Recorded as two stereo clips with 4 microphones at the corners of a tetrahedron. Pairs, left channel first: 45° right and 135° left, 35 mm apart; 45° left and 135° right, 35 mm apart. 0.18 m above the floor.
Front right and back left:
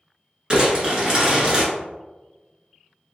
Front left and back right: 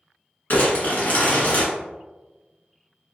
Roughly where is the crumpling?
Left.